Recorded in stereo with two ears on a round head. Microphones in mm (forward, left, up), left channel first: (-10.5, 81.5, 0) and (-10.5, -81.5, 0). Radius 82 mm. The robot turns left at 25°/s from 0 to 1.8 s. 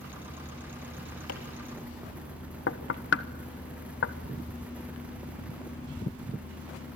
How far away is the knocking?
About 1.2 m.